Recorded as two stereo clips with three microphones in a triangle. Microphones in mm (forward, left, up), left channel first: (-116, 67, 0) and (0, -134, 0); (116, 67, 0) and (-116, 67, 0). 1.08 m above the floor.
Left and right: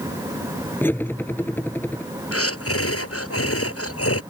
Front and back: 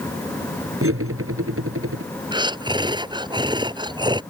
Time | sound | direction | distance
0.8 | cutlery clinking | 160° right | ?
2.3 | breathing | 110° left | ?